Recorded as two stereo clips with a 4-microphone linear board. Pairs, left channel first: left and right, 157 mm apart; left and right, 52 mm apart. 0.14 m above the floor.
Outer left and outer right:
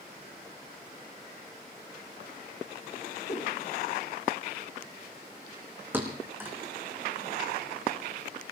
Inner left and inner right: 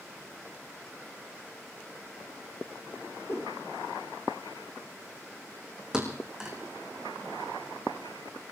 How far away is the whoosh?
About 4 m.